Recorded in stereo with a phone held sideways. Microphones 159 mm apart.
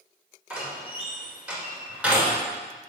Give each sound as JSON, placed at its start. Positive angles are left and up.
{"t": 0.5, "sound": "a door slam", "side_deg": -5, "distance_m": 1.8}